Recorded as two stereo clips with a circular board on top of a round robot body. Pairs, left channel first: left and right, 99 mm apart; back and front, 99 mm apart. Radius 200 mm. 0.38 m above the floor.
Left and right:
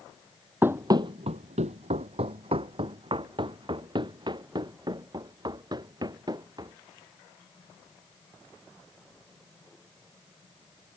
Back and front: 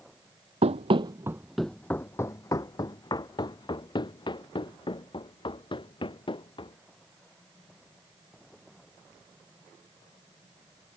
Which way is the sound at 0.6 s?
20° right.